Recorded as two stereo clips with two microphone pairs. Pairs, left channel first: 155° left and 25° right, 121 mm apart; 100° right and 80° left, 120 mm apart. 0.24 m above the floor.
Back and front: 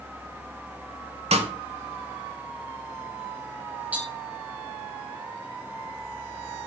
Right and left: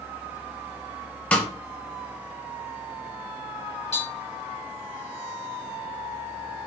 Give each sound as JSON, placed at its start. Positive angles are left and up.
{"t": 1.3, "sound": "a snare drum", "azimuth_deg": -20, "distance_m": 0.7}
{"t": 3.9, "sound": "tapping", "azimuth_deg": -100, "distance_m": 1.3}